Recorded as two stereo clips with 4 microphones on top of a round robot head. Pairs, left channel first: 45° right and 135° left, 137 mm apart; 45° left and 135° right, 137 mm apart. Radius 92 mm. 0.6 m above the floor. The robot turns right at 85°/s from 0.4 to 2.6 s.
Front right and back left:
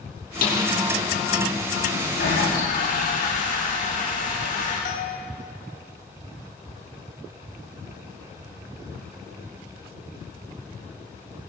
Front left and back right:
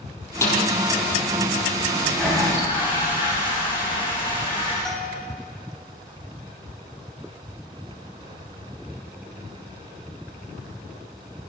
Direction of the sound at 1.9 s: 70° right.